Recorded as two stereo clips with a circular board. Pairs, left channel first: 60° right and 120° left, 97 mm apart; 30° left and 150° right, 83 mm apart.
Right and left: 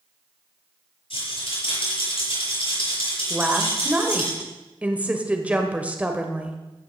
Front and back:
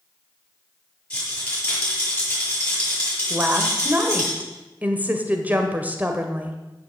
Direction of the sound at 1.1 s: 45° right.